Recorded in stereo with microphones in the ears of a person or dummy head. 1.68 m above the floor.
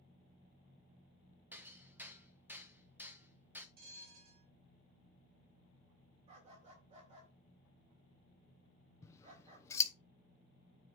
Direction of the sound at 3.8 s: 50° right (ahead or behind).